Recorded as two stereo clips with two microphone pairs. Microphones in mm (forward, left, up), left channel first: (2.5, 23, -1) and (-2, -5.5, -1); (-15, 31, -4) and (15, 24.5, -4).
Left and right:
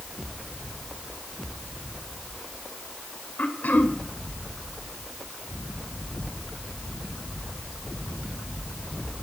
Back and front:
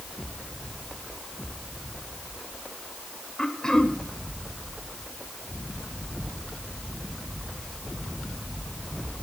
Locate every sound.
3.4 s throat clearing: 95° left, 1.5 m